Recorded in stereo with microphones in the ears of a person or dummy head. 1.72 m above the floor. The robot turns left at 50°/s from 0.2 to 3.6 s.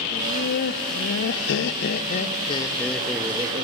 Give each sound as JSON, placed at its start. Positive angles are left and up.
{"t": 0.1, "sound": "laughter", "azimuth_deg": 145, "distance_m": 0.6}